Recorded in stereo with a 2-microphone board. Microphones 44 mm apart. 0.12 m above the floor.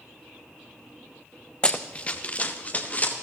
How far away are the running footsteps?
About 0.7 m.